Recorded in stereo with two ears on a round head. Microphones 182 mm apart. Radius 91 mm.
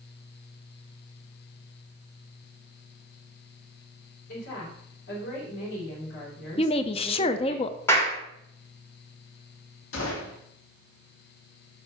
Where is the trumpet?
No trumpet in this recording.